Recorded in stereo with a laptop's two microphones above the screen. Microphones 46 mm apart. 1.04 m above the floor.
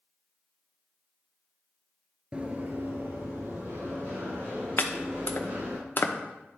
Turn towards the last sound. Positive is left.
turn(degrees=45)  # may be behind; listen again after turning